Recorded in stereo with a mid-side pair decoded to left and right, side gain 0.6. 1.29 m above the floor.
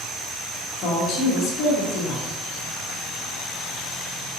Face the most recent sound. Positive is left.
turn(degrees=60)